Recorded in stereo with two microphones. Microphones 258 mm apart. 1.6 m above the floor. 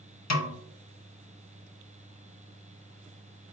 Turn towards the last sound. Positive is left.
turn(degrees=85)